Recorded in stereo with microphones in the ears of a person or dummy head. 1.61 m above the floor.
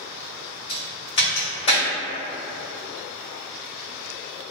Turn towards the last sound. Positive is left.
turn(degrees=30)  # may be behind; listen again after turning